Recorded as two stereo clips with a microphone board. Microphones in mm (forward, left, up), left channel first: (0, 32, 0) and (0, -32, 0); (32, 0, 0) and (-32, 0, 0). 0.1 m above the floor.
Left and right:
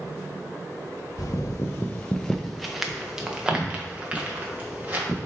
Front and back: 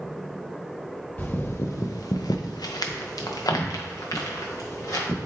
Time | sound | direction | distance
1.2 | footsteps | 65° left | 0.5 m